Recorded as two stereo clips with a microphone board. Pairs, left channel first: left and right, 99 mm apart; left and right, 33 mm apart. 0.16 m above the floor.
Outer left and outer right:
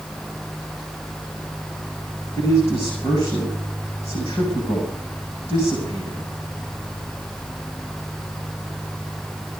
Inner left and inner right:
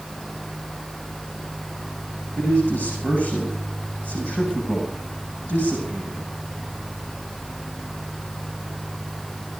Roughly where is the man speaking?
Left.